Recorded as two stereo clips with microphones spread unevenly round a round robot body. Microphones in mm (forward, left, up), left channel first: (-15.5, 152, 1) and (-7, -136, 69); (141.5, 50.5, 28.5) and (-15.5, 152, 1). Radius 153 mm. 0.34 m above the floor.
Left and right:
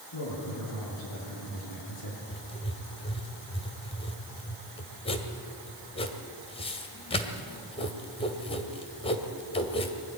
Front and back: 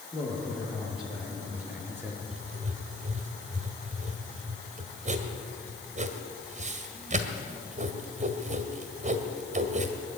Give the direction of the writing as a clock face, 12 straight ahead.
7 o'clock.